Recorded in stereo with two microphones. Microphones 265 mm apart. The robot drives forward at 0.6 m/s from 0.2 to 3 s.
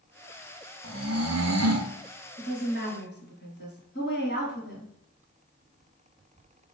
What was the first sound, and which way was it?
Snoring, 50° right (ahead or behind).